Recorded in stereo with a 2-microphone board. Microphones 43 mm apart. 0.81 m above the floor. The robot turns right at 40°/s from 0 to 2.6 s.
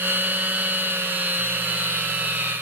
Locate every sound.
Only background noise.